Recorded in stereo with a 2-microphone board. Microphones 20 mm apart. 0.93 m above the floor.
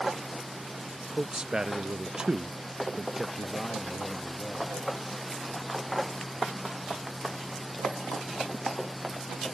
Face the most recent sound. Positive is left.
turn(degrees=-10)  # may be behind; listen again after turning